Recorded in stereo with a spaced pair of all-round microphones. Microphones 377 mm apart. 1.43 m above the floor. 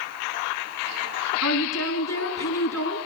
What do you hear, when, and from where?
1.4 s a woman speaking: 45° left (ahead or behind), 6.5 m